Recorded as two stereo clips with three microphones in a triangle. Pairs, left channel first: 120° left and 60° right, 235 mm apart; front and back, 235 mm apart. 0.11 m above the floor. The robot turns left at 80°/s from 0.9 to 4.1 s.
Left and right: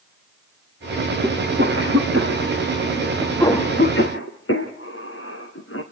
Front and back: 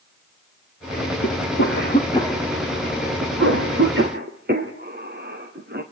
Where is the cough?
5° left, 3.5 m; by 5.8 s 135° left, 3.5 m.